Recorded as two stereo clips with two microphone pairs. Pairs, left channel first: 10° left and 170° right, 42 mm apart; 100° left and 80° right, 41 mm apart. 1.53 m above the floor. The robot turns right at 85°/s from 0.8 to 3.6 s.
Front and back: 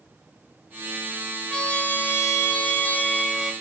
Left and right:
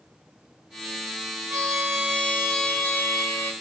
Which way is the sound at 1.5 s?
75° right.